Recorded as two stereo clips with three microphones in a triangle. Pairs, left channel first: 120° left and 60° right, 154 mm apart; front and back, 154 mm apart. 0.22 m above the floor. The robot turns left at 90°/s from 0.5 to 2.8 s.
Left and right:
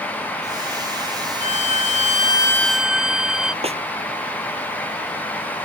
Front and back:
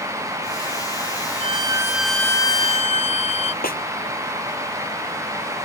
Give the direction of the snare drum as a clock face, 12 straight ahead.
12 o'clock.